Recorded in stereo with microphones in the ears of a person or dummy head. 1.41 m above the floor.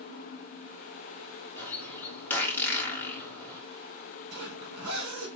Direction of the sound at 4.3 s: 85° right.